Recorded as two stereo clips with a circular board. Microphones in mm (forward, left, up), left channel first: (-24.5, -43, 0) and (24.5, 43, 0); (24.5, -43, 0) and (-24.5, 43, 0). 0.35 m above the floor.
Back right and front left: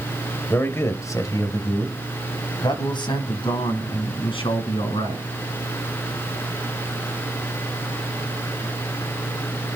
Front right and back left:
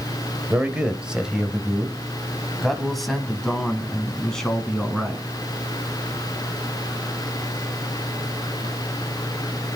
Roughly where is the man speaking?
Behind.